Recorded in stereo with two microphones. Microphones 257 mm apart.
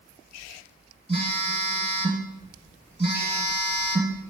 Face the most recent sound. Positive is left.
turn(degrees=-20)  # may be behind; listen again after turning